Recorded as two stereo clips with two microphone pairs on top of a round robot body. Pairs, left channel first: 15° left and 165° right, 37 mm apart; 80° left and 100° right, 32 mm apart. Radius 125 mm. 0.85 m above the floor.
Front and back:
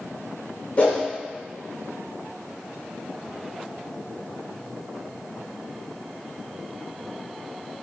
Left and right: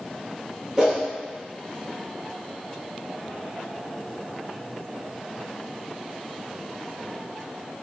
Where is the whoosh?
30° right, 1.6 m.